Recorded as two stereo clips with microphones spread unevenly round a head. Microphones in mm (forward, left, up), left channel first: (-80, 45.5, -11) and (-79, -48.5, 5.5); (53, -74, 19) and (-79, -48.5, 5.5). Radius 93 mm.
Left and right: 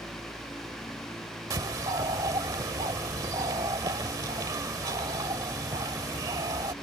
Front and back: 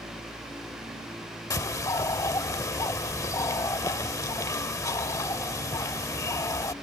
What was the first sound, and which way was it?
A bird, 65° right.